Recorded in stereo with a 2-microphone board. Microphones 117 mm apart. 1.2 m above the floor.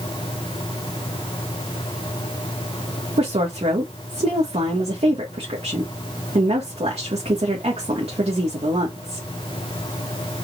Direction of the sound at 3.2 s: 65° right (ahead or behind).